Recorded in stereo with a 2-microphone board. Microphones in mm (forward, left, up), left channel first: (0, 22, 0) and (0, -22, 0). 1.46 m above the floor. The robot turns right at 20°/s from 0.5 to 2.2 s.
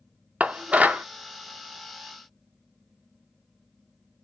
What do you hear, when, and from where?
0.4 s dishes clattering: 30° right (ahead or behind), 0.5 m